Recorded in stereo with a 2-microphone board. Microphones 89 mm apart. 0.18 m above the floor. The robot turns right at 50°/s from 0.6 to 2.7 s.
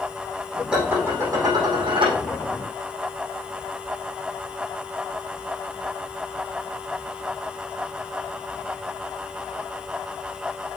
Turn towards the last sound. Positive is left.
turn(degrees=-70)